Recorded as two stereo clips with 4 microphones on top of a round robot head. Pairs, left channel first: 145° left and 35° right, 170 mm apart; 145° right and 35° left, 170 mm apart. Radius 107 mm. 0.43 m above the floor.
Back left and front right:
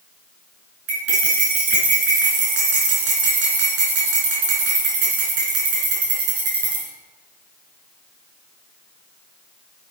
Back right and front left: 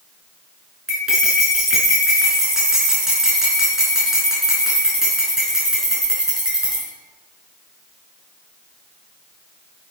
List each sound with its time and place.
0.9 s cutlery clinking: 50° right, 4 m